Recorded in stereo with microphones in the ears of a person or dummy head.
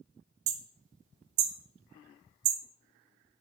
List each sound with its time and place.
0.5 s hammering: 60° right (ahead or behind), 0.8 m